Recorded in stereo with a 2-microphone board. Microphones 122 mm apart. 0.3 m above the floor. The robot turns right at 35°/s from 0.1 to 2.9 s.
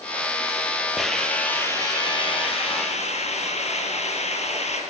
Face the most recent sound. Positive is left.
turn(degrees=65)